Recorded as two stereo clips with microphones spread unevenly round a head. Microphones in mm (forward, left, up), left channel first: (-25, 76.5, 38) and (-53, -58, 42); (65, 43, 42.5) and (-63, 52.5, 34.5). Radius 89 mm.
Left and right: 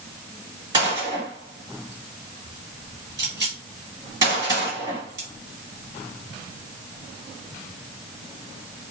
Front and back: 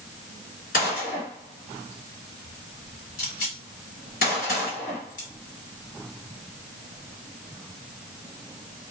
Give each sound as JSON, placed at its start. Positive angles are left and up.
{"t": 0.7, "sound": "a gunshot", "azimuth_deg": -35, "distance_m": 1.6}